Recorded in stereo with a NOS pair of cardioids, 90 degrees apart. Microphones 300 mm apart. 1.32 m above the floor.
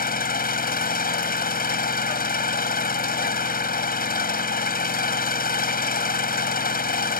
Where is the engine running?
30° left.